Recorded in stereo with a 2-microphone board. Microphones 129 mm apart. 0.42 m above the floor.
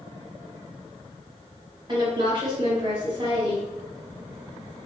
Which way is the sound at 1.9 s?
35° right (ahead or behind).